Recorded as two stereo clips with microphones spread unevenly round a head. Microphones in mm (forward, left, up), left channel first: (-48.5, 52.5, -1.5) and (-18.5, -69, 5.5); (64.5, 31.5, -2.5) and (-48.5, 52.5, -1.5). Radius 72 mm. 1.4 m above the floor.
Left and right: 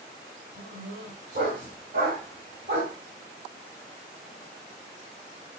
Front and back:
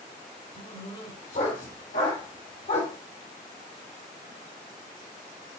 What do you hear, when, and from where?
0.6 s a dog barking: 40° right, 1.7 m